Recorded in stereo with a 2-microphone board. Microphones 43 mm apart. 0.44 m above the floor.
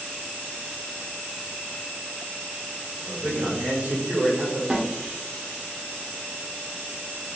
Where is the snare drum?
25° right (ahead or behind), 0.9 m.